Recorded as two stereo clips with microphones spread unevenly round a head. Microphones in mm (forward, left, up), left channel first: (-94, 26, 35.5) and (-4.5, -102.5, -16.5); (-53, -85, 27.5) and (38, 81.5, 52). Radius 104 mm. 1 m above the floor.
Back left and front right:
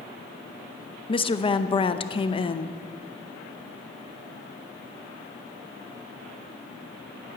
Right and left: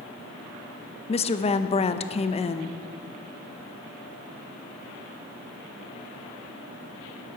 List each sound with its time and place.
1.1 s a woman speaking: 170° right, 0.8 m